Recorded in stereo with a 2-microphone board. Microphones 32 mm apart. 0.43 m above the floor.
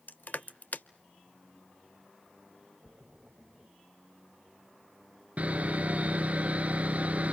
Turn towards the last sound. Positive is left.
turn(degrees=-45)  # may be behind; listen again after turning